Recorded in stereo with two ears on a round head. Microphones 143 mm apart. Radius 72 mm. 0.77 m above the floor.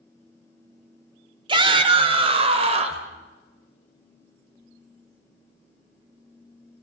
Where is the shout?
30° right (ahead or behind), 2.5 m; by 3.1 s 45° right (ahead or behind), 3.5 m.